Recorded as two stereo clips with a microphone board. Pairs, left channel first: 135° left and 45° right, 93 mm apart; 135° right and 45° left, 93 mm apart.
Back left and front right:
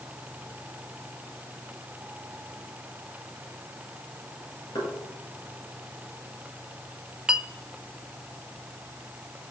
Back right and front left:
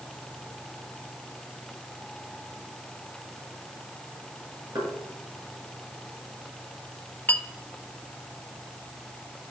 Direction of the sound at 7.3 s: 110° right.